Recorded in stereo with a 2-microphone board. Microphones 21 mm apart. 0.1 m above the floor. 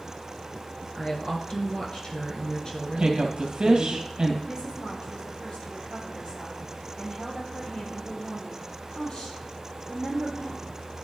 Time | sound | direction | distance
0.9 | a woman speaking | 35° left (ahead or behind) | 1.4 m
3.0 | a woman speaking | 50° right (ahead or behind) | 2 m
4.4 | a woman speaking | 45° left (ahead or behind) | 3.5 m